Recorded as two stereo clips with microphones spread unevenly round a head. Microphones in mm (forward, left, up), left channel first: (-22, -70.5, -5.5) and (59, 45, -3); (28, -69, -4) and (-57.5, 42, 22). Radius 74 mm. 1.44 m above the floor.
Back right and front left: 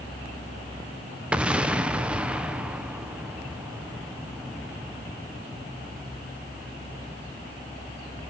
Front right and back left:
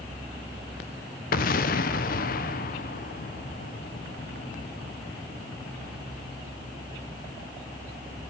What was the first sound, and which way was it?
An explosion, 30° right.